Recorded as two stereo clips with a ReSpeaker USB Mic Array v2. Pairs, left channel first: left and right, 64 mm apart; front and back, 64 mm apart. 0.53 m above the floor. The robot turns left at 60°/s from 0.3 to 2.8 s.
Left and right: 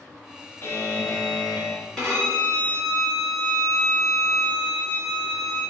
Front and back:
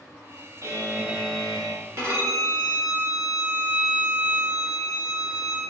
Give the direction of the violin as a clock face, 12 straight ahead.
6 o'clock.